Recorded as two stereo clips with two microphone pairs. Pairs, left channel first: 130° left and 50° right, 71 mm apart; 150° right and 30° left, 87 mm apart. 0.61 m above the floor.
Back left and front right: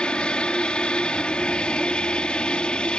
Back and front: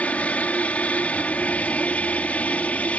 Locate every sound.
0.0 s an aircraft: 175° left